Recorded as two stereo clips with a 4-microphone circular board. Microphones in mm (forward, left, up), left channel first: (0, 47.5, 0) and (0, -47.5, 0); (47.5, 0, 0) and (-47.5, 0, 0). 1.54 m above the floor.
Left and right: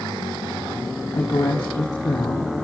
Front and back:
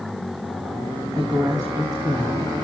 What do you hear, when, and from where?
1.1 s a woman speaking: 135° left, 3 m